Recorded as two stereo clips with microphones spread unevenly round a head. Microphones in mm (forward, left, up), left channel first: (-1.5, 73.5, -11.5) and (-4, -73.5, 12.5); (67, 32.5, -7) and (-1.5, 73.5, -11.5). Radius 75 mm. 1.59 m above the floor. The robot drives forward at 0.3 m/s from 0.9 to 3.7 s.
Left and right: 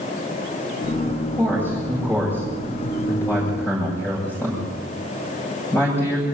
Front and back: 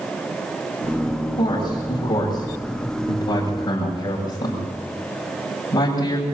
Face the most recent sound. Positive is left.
turn(degrees=10)